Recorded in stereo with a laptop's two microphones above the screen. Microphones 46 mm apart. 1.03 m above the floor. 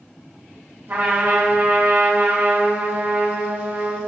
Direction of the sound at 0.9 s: 50° right (ahead or behind).